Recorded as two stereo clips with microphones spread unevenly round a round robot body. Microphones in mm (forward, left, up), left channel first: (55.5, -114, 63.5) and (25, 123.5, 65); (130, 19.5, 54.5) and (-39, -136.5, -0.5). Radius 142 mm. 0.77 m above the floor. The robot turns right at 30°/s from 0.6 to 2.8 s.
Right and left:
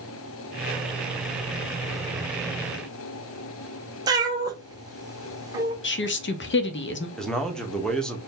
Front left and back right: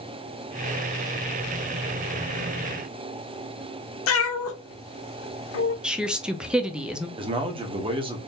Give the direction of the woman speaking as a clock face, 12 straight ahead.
2 o'clock.